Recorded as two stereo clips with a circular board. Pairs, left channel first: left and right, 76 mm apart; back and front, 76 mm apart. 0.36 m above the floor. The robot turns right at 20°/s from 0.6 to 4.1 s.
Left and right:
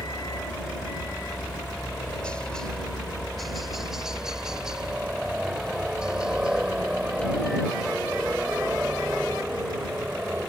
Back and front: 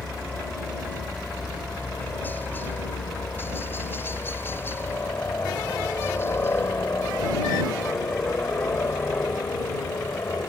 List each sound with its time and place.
0.0 s a helicopter: 115° left; by 10.5 s 160° right